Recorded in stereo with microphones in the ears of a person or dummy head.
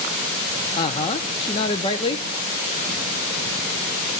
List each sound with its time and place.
0.8 s a woman speaking: 25° left (ahead or behind), 0.8 m